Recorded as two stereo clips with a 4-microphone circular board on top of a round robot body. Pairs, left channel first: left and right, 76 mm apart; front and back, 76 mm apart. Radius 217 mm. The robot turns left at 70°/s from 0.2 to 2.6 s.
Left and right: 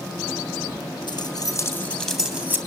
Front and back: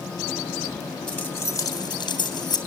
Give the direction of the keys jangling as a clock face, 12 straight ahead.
10 o'clock.